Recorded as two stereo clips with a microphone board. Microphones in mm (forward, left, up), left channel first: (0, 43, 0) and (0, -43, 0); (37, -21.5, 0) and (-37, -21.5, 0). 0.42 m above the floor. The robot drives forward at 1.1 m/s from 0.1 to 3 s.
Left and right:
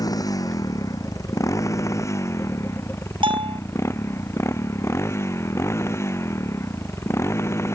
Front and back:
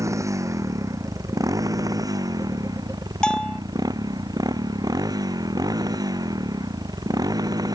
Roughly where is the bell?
Right.